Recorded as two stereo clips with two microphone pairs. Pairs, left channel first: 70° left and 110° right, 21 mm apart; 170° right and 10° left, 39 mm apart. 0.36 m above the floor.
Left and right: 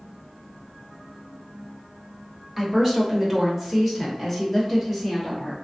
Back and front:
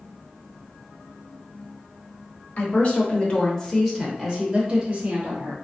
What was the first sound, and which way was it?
A woman speaking, 170° left.